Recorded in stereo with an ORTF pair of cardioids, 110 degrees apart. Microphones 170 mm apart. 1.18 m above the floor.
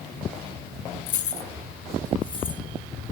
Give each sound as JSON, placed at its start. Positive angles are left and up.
{"t": 1.1, "sound": "keys jangling", "azimuth_deg": 55, "distance_m": 0.6}